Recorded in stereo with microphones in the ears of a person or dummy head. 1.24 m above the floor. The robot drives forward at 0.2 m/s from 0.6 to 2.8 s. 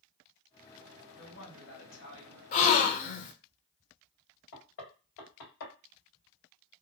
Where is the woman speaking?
75° left (ahead or behind), 1.9 m; by 2.4 s 70° left (ahead or behind), 1.9 m.